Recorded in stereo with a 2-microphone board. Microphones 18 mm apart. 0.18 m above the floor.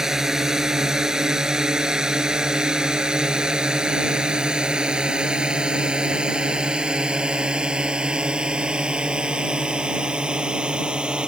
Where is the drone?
30° right (ahead or behind); by 11.3 s 70° right (ahead or behind).